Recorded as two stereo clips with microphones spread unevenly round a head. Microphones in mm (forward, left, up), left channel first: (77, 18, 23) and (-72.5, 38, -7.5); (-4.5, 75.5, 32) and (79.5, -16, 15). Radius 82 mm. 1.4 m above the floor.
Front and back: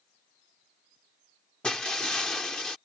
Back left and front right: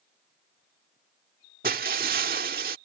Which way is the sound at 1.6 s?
90° right.